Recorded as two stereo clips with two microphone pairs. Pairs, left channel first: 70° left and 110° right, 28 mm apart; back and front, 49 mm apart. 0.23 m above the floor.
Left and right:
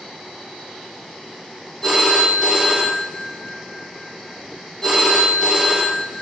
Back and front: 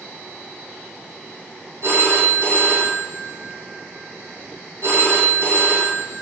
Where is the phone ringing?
Straight ahead, 4.5 m.